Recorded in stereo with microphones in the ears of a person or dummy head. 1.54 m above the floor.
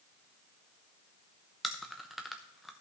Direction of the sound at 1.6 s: Centre (ahead or behind).